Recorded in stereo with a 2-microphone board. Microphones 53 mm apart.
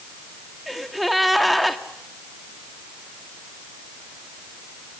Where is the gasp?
Centre (ahead or behind), 1.2 m.